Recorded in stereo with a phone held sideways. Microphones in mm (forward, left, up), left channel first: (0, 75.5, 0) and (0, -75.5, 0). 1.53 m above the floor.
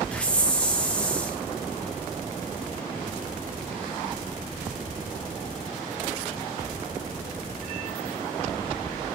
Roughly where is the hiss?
Centre.